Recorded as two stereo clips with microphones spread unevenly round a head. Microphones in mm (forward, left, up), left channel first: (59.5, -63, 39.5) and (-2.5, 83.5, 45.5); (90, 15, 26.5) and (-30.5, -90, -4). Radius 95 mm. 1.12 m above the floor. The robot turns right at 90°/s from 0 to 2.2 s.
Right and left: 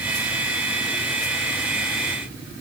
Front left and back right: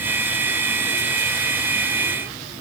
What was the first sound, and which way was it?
Only background noise.